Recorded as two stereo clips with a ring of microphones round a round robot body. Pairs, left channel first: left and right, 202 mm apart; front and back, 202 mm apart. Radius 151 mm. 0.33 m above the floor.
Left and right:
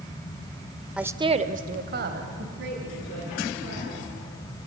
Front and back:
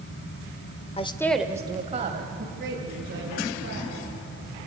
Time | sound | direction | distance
1.0 | a woman speaking | 5° right | 1.0 m